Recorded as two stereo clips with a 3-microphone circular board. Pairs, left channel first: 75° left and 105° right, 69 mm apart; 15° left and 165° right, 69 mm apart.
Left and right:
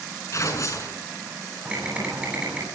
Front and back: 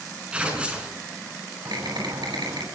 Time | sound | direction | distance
0.3 | tearing paper | 120° left | 5 m
1.6 | typing on a keyboard | 175° right | 9.5 m